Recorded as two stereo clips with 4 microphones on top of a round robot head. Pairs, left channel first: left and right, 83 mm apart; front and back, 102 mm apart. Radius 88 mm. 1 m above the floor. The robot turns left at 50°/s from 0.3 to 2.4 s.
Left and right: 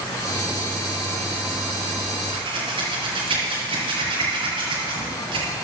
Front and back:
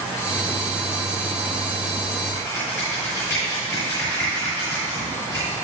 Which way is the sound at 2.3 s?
65° right.